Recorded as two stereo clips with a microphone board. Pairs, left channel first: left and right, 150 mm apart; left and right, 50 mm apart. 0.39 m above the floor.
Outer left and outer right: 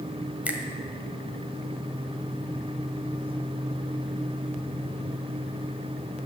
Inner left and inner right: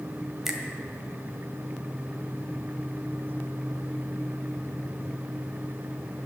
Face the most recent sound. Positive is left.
turn(degrees=-10)  # may be behind; listen again after turning